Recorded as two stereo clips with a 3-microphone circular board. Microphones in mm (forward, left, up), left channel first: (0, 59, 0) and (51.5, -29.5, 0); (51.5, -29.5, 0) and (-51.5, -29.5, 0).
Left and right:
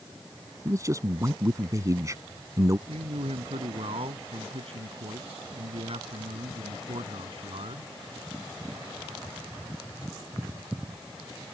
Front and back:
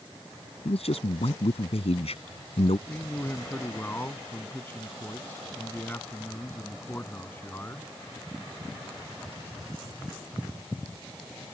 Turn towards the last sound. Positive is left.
turn(degrees=-70)